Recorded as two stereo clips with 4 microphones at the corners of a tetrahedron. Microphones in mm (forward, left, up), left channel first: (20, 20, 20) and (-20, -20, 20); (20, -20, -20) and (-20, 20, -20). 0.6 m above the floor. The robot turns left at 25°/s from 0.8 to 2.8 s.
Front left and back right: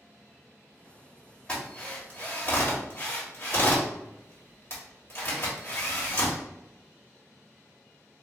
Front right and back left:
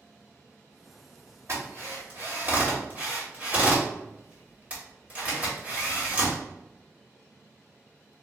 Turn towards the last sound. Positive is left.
turn(degrees=80)